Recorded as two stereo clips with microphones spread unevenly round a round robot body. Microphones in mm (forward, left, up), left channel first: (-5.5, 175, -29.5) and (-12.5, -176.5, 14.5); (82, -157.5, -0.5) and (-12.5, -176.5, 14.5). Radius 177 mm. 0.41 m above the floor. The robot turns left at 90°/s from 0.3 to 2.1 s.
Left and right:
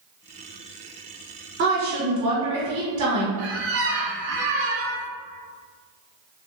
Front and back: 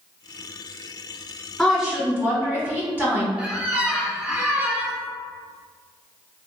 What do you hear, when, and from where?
1.6 s a woman speaking: 55° right, 1.3 m; by 3.3 s 100° right, 1.3 m
3.4 s a squeak: 85° right, 0.7 m